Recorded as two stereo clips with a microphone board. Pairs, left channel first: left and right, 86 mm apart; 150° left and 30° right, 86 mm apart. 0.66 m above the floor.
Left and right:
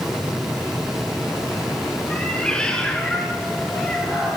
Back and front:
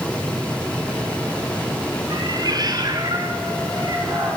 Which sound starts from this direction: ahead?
A cat meowing, at 2.1 s.